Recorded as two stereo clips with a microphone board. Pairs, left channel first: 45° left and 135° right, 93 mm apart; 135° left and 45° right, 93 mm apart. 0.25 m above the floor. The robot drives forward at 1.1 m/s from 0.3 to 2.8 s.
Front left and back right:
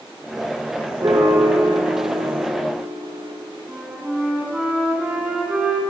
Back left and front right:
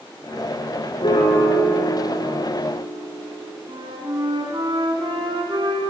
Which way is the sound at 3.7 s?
55° right.